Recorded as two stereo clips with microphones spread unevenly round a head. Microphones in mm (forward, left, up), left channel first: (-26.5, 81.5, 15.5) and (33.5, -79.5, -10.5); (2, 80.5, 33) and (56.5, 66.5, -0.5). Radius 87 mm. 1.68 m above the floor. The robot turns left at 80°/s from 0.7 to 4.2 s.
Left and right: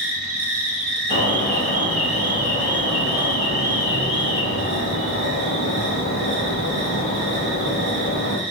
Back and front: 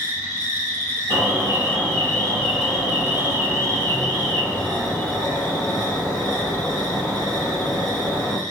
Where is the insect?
105° right, 1.6 m; by 8.5 s 25° right, 1.6 m.